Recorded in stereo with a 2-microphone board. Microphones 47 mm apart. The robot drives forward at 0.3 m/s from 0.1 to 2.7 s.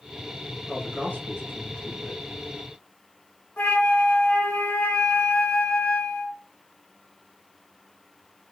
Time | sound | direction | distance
0.7 | a man speaking | 35° left (ahead or behind) | 1.6 m
3.6 | a flute | 35° left (ahead or behind) | 1.7 m